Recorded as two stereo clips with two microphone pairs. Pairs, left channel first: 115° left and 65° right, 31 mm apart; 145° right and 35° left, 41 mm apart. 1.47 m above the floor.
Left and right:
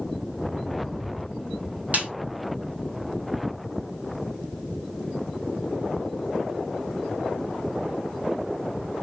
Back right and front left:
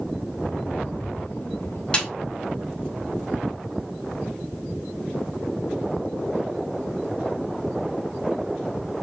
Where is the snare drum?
80° right, 3.5 m.